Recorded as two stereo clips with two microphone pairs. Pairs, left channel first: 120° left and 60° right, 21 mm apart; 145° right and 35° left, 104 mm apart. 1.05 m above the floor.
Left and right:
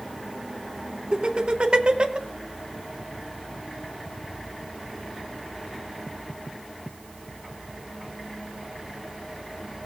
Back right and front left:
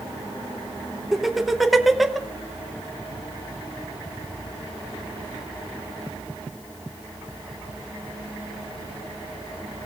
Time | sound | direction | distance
1.1 | laughter | 55° right | 1.0 m